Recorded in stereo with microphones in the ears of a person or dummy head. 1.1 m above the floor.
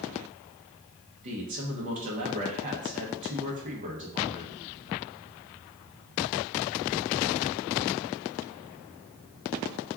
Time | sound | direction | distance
1.2 | a man speaking | 35° right (ahead or behind) | 0.7 m